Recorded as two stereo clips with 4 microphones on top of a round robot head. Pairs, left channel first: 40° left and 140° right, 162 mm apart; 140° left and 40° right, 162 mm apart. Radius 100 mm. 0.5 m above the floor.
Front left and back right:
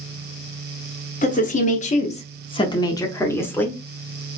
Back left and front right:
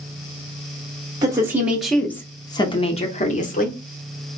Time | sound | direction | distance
1.2 | a woman speaking | 25° left | 1.0 m